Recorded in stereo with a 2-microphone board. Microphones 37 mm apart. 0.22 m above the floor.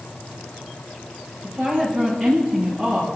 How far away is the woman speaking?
About 5 m.